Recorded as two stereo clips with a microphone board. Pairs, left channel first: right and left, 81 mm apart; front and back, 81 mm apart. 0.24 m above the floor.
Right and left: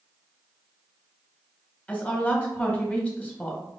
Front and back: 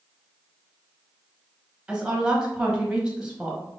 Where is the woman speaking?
125° right, 1.1 m.